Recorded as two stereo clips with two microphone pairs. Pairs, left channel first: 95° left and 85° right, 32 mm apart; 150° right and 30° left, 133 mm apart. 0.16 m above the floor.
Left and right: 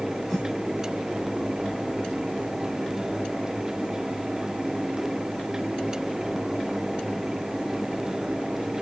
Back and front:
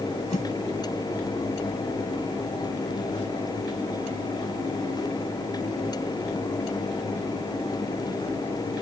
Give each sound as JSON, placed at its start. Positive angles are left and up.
{"t": 0.3, "sound": "a whoosh", "azimuth_deg": -175, "distance_m": 10.0}